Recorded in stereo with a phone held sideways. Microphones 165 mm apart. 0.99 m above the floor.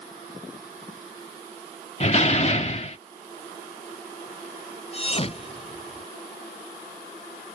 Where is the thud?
35° left (ahead or behind).